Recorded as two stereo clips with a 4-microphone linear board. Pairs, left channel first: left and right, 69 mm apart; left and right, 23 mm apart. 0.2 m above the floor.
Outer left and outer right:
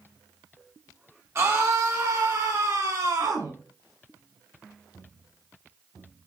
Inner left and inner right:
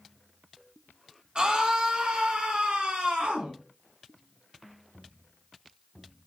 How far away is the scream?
About 2.5 m.